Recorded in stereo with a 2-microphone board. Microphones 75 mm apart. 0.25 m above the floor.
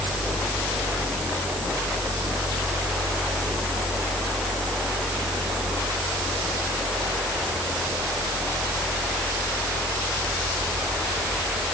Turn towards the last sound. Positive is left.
No sound to turn to.